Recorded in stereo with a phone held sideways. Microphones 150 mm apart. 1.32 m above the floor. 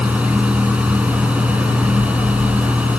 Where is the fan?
10° right (ahead or behind).